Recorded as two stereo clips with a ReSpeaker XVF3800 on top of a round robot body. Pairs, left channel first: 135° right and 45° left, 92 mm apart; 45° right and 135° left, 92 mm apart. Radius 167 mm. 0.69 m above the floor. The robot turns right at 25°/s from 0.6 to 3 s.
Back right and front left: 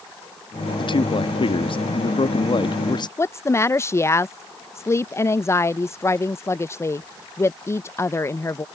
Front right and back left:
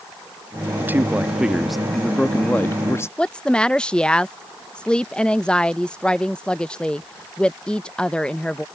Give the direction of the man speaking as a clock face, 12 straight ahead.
5 o'clock.